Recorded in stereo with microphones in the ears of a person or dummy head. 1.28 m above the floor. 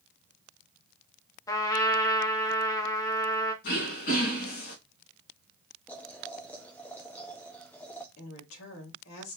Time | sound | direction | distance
1.5 | a trumpet | 20° left (ahead or behind) | 0.9 m
3.6 | throat clearing | 50° left (ahead or behind) | 2 m
5.9 | boiling | 10° left (ahead or behind) | 0.9 m
8.2 | a woman speaking | 75° left (ahead or behind) | 3 m